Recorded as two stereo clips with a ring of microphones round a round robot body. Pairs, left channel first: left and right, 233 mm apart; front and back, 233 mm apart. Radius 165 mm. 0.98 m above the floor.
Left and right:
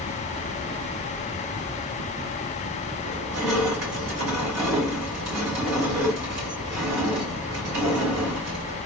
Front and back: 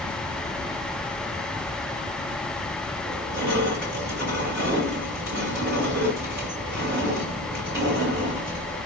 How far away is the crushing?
About 3 m.